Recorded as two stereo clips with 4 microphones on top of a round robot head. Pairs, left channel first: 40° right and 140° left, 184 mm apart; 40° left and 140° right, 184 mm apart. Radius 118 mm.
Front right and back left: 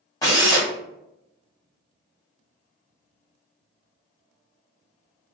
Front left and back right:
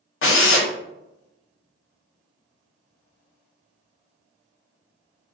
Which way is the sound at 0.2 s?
35° left.